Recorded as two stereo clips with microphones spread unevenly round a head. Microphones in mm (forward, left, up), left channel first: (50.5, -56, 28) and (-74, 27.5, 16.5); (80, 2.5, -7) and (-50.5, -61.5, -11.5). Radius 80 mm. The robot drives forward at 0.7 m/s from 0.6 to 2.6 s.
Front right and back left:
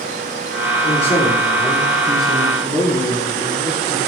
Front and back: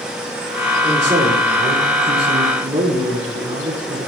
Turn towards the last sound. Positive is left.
turn(degrees=-125)